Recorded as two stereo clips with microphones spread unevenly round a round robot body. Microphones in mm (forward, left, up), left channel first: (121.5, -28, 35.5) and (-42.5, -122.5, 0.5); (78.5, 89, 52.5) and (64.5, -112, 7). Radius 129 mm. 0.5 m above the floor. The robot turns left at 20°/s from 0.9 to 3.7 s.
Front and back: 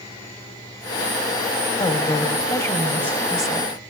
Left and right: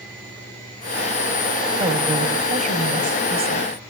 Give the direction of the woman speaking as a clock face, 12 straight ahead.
1 o'clock.